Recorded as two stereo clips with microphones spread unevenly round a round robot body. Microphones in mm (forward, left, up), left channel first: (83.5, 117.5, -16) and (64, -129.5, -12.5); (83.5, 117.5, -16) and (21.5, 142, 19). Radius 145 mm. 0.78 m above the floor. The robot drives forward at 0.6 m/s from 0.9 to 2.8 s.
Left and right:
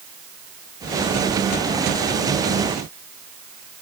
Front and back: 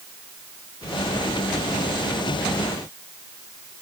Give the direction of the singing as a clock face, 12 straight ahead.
No singing in this recording.